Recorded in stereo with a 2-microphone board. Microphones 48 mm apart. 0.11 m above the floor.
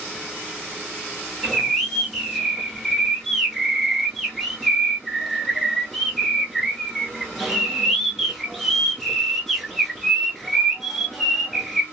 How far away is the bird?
About 0.7 m.